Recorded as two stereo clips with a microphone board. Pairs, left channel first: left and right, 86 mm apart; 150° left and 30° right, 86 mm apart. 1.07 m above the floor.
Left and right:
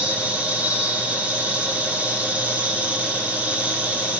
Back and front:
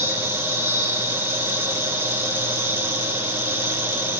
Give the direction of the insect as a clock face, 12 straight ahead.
1 o'clock.